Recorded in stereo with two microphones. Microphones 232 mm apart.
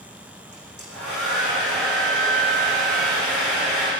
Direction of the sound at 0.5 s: 75° right (ahead or behind).